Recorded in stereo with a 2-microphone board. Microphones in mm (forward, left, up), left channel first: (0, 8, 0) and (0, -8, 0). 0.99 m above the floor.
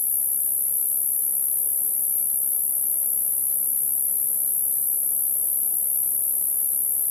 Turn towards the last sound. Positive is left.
turn(degrees=10)  # may be behind; listen again after turning